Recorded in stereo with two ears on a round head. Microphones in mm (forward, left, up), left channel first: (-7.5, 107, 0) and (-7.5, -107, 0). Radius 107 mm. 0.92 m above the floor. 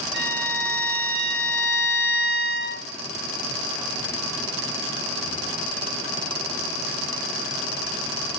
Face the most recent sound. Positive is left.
turn(degrees=-50)  # may be behind; listen again after turning